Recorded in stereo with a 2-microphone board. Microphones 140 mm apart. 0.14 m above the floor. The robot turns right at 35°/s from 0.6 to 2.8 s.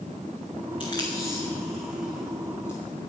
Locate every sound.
0.8 s tape being pulled: 35° left (ahead or behind), 1.9 m; by 3.1 s 35° right (ahead or behind), 1.9 m